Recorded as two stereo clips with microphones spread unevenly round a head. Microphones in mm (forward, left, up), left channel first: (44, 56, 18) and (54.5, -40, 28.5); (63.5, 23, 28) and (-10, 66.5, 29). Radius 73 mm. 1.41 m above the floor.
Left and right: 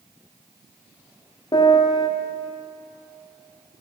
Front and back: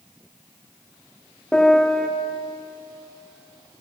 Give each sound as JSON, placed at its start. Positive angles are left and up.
{"t": 1.5, "sound": "a piano", "azimuth_deg": 50, "distance_m": 4.0}